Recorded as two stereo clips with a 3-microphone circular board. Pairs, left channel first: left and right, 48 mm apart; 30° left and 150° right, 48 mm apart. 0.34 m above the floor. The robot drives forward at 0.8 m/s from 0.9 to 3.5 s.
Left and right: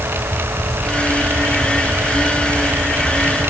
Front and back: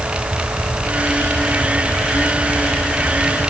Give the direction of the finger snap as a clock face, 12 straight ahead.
I don't hear a finger snap.